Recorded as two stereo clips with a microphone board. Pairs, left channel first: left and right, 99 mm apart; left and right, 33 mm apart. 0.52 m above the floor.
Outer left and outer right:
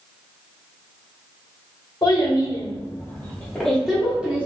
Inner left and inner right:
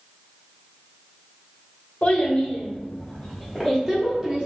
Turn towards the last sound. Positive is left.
turn(degrees=-15)  # may be behind; listen again after turning